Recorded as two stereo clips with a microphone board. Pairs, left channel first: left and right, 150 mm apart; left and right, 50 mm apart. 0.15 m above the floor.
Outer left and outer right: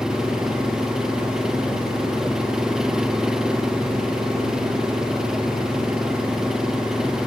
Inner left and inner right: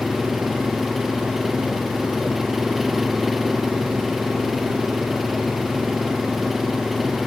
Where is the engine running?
5° right (ahead or behind).